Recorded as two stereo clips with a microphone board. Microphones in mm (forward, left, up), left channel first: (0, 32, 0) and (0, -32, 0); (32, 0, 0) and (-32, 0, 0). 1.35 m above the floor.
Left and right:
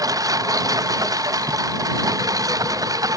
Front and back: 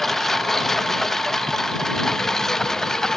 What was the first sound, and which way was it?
A lawn mower, 85° right.